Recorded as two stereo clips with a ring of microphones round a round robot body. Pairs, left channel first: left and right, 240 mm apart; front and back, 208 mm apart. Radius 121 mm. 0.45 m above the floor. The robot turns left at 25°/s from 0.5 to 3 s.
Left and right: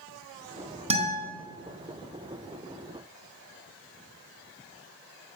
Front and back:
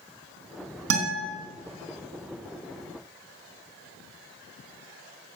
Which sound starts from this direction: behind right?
A guitar, at 0.9 s.